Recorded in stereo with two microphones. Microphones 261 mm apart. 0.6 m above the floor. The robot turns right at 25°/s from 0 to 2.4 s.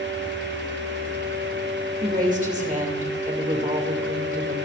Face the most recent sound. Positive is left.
turn(degrees=-30)  # may be behind; listen again after turning